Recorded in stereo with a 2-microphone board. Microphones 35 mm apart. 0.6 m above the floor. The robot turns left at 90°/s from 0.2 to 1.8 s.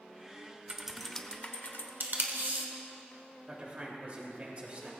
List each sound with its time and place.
0.7 s typing on a keyboard: 155° right, 0.9 m; by 1.9 s 105° left, 0.9 m
2.0 s tape being pulled: 65° right (ahead or behind), 1.6 m
3.5 s a man speaking: 40° right (ahead or behind), 2.5 m